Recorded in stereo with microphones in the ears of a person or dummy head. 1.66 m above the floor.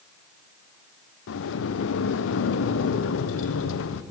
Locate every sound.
1.3 s a sliding door: 80° left, 0.9 m